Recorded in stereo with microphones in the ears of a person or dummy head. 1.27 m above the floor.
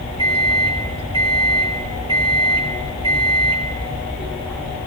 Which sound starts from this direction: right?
A microwave, at 0.2 s.